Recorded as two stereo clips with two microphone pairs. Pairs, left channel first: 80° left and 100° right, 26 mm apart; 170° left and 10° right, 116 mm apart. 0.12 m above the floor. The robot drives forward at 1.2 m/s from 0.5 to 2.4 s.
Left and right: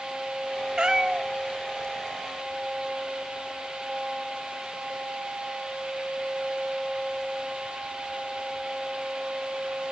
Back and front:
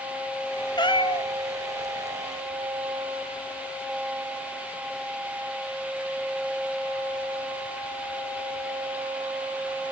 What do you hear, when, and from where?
0.8 s a cat meowing: 150° right, 1.3 m; by 1.3 s 160° right, 1.9 m